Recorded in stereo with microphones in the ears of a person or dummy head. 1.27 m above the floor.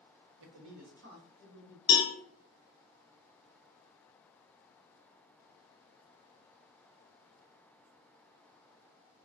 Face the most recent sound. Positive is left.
turn(degrees=25)  # may be behind; listen again after turning